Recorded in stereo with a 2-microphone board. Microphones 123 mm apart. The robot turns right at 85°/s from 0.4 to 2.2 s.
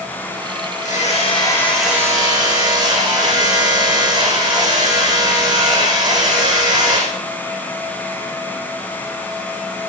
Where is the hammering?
100° left, 8 m; by 7.1 s 145° right, 8 m.